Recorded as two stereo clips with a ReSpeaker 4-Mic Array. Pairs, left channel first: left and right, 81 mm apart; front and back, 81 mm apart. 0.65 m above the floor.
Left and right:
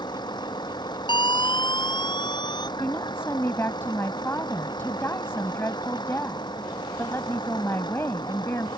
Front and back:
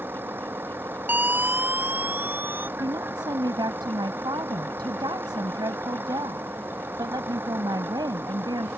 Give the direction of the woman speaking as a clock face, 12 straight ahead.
7 o'clock.